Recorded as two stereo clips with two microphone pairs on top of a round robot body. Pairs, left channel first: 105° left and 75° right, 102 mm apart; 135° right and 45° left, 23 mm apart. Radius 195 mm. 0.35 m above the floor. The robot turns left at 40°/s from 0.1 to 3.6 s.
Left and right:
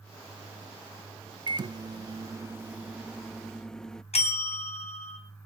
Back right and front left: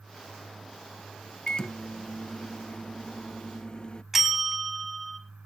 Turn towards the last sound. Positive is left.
turn(degrees=125)